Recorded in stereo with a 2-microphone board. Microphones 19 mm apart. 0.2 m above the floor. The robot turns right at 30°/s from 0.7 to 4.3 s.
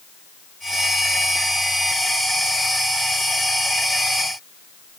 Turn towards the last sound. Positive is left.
No sound to turn to.